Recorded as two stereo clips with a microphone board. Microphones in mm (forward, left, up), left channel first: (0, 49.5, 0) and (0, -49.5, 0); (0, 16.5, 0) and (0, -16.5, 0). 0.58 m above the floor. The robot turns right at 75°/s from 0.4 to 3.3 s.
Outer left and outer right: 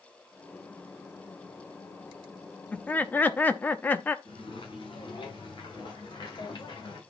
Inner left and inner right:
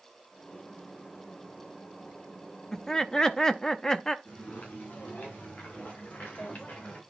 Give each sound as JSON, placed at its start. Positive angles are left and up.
{"t": 2.7, "sound": "laughter", "side_deg": 15, "distance_m": 0.7}
{"t": 4.2, "sound": "footsteps", "side_deg": 65, "distance_m": 5.0}